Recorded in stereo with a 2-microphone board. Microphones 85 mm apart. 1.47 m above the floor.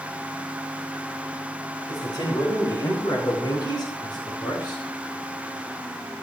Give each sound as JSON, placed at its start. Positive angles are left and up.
{"t": 1.9, "sound": "a man speaking", "side_deg": 50, "distance_m": 6.0}